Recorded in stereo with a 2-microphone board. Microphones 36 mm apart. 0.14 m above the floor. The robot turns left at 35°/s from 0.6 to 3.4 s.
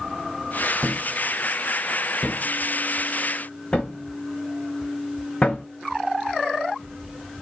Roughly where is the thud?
Right.